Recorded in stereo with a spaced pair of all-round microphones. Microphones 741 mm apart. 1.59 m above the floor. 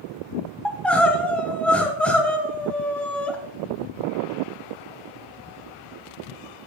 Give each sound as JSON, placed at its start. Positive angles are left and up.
{"t": 0.7, "sound": "crying", "side_deg": 0, "distance_m": 1.2}